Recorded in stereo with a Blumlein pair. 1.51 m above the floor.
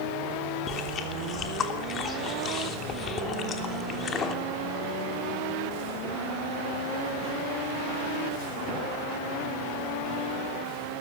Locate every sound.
0.7 s chewing: 25° left, 3 m